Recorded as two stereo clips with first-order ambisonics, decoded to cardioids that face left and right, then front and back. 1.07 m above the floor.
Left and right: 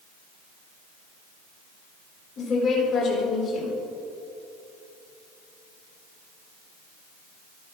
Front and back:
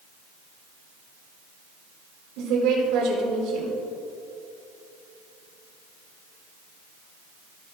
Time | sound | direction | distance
2.4 | a woman speaking | 145° left | 3.5 m